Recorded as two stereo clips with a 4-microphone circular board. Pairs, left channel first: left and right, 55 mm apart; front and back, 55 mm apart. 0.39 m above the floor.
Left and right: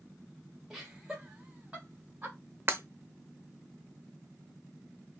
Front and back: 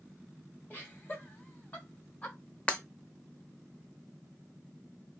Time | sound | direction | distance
0.7 | laughter | 15° right | 1.5 m
2.7 | breaking glass | 60° right | 0.6 m